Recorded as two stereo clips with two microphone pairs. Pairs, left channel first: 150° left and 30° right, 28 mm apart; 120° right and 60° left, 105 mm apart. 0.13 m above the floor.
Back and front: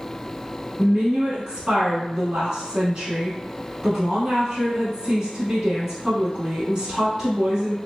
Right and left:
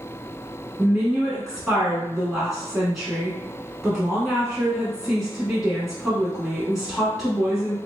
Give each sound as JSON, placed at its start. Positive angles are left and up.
{"t": 0.8, "sound": "a woman speaking", "azimuth_deg": -25, "distance_m": 1.0}